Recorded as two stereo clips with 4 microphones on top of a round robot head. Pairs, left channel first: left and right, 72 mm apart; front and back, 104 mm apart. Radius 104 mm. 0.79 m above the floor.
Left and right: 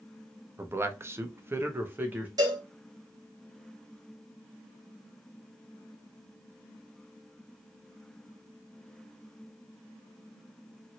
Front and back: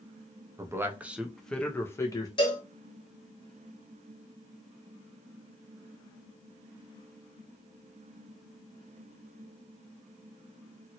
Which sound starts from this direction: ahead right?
A cowbell, at 2.4 s.